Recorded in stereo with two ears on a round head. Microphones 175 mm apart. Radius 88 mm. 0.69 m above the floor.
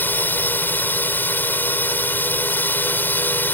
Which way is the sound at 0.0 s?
10° left (ahead or behind).